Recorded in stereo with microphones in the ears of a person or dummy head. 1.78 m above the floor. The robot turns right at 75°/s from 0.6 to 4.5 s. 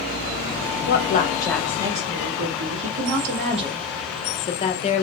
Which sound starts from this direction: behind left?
A woman speaking, at 0.9 s.